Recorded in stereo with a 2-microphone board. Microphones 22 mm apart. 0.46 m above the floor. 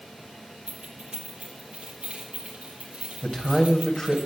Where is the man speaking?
30° left (ahead or behind), 3 m.